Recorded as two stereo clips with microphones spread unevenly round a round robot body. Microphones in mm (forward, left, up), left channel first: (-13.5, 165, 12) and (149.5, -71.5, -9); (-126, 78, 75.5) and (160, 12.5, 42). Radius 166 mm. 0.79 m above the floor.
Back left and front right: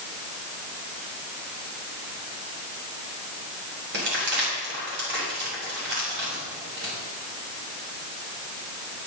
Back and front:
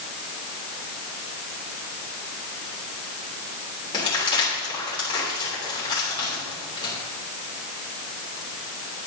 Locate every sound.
3.9 s crumpling: 115° right, 3 m